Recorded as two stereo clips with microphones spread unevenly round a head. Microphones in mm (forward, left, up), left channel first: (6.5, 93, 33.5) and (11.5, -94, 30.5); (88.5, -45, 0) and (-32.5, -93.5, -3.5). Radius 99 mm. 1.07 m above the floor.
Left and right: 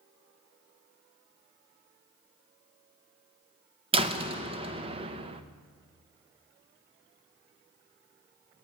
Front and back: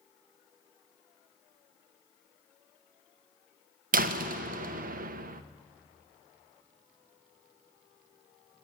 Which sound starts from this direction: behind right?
A door slam, at 3.9 s.